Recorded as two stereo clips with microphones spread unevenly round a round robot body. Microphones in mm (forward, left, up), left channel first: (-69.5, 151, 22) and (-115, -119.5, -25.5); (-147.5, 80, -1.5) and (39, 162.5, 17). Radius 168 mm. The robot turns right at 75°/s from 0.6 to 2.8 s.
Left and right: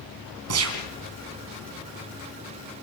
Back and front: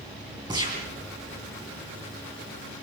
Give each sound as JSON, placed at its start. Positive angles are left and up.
{"t": 0.5, "sound": "a gunshot", "azimuth_deg": -55, "distance_m": 3.0}